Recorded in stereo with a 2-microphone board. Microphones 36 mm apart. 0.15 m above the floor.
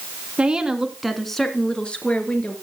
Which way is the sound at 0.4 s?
25° right (ahead or behind).